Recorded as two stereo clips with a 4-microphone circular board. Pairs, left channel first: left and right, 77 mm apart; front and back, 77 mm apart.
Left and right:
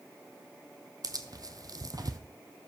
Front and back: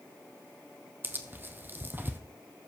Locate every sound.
1.0 s tearing paper: 120° right, 0.9 m